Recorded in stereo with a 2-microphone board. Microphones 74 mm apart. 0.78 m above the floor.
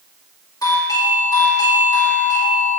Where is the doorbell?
55° left (ahead or behind), 1.9 m.